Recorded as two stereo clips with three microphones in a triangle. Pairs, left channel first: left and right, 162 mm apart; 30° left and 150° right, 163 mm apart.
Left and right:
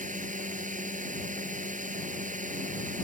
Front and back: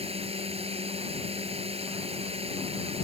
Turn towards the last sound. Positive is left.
turn(degrees=-105)